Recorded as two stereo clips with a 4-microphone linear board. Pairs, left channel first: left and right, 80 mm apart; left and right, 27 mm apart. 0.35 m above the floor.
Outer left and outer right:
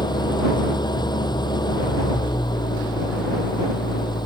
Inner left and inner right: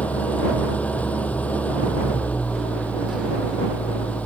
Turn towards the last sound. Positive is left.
turn(degrees=70)  # may be behind; listen again after turning